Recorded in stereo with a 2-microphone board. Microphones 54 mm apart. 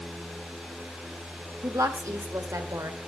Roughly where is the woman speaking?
Right.